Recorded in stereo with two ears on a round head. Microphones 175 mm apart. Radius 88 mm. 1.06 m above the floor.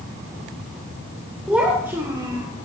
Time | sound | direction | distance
1.5 | a child speaking | 5° right (ahead or behind) | 3 m